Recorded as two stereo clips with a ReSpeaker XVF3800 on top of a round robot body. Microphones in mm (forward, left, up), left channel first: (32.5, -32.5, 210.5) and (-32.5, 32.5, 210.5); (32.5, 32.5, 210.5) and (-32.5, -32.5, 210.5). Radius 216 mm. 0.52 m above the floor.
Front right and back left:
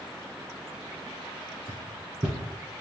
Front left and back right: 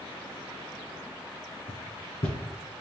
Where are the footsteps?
70° left, 1.9 m.